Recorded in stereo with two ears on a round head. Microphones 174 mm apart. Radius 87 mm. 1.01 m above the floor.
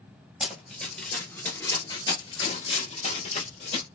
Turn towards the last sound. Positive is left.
turn(degrees=35)  # may be behind; listen again after turning